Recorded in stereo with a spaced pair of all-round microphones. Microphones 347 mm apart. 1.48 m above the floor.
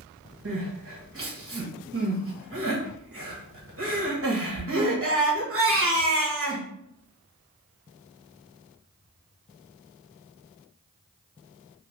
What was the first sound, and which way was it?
Crying, 40° right (ahead or behind).